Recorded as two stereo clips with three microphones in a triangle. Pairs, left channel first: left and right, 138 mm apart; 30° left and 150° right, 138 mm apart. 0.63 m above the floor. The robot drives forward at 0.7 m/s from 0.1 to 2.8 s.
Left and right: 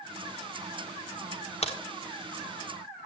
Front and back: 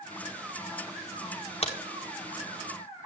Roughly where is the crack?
Ahead left.